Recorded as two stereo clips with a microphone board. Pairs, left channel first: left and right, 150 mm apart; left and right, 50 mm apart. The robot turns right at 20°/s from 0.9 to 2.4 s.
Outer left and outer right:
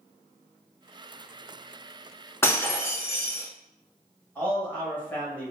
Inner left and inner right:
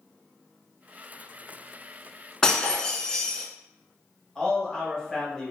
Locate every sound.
2.4 s breaking glass: 15° left (ahead or behind), 0.5 m
4.3 s a man speaking: 15° left (ahead or behind), 1.1 m